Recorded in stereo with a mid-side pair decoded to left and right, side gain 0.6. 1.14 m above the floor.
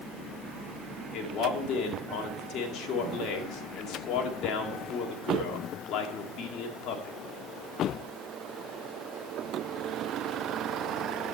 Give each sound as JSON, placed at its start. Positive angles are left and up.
{"t": 1.1, "sound": "a man speaking", "azimuth_deg": 60, "distance_m": 2.5}